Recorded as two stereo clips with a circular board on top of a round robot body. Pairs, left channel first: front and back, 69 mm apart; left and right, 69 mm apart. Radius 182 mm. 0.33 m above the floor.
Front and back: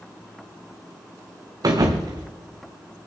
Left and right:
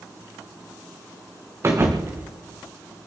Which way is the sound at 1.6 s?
145° right.